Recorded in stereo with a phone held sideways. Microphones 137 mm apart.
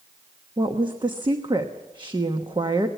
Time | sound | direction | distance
0.6 | a woman speaking | 35° right (ahead or behind) | 1.1 m